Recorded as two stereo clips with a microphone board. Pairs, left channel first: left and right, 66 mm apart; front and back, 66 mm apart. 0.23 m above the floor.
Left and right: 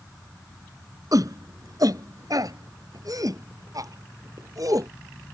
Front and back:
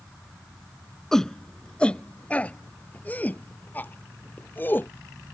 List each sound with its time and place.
1.1 s a shout: 85° right; by 4.9 s 60° right